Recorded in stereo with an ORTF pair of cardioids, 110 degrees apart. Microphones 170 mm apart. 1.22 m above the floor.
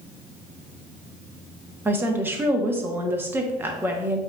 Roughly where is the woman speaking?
Ahead.